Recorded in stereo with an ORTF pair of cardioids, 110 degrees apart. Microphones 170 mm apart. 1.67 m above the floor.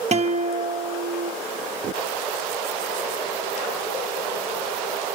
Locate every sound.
0.1 s a guitar: 40° right, 1.0 m